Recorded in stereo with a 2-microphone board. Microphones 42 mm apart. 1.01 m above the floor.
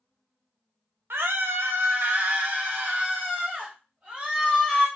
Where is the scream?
70° right (ahead or behind), 0.8 m; by 4.9 s 30° right (ahead or behind), 2.5 m.